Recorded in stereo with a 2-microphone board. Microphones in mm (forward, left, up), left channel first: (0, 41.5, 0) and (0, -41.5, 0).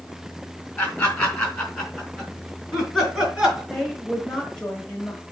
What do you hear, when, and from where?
0.8 s laughter: 15° left (ahead or behind), 3.5 m; by 3.6 s 5° right (ahead or behind), 5 m
3.7 s a woman speaking: 10° left (ahead or behind), 1.4 m